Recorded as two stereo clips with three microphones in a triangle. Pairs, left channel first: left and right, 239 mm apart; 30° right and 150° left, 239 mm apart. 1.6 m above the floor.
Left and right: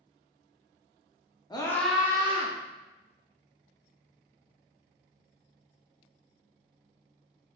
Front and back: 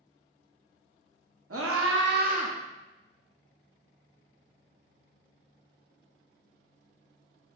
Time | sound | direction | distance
1.5 | a scream | 160° left | 0.7 m